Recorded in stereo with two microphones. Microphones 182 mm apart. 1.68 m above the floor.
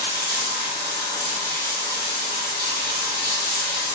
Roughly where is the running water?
Left.